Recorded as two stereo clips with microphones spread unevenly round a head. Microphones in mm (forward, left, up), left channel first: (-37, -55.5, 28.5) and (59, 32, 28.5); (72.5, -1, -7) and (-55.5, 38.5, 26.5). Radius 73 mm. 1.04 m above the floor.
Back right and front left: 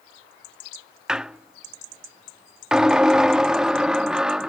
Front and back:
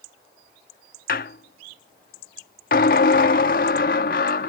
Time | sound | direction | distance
1.1 | a squeak | 40° right | ?